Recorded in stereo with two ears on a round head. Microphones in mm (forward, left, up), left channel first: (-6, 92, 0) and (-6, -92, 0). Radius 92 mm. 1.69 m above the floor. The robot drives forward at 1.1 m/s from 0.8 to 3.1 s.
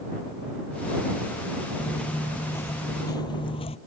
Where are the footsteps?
5° left (ahead or behind); by 3.8 s 30° left (ahead or behind).